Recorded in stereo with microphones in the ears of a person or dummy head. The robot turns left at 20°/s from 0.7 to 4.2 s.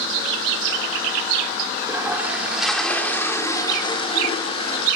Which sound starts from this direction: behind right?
A toilet flushing, at 1.8 s.